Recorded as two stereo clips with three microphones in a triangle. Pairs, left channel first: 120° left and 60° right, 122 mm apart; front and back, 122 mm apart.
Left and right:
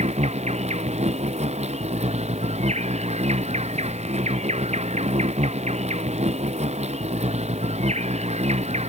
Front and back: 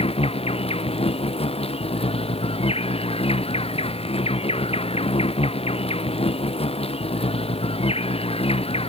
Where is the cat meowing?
No cat meowing in this recording.